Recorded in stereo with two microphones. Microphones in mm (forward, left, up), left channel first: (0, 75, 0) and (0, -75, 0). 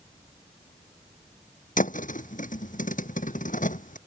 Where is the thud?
65° left (ahead or behind).